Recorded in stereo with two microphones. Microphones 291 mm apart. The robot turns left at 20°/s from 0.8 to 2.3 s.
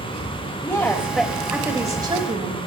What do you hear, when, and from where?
0.6 s a woman speaking: 5° left (ahead or behind), 1.6 m; by 2.6 s 20° right (ahead or behind), 1.6 m